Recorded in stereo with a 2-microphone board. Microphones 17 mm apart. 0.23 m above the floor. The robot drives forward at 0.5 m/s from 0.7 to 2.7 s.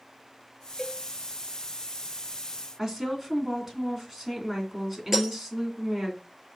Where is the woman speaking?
20° right (ahead or behind), 2.5 m.